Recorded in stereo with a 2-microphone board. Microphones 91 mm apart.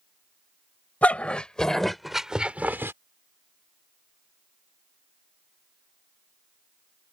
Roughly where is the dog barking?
Centre.